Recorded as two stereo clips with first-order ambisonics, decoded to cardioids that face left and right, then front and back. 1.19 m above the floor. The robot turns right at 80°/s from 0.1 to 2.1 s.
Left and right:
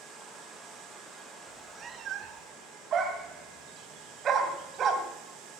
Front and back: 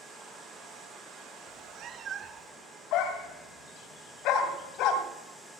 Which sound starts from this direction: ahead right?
A dog barking, at 2.9 s.